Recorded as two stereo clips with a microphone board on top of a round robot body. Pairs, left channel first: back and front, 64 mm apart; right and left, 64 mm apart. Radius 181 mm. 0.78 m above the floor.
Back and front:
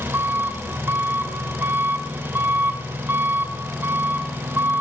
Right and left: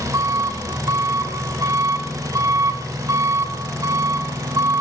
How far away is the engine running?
About 3 m.